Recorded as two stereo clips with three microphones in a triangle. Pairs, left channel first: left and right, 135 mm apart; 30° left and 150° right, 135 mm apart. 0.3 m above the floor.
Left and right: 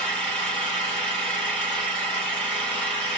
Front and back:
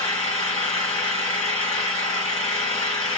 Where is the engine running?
10° left, 1.7 m.